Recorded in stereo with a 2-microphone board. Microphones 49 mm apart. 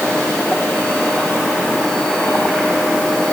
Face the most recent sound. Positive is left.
No sound to turn to.